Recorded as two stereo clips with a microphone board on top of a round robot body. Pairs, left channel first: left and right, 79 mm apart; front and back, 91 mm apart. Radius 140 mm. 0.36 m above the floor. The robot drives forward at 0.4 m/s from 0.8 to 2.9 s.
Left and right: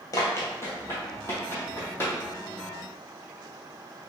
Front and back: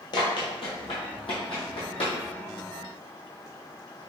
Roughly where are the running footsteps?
Ahead left.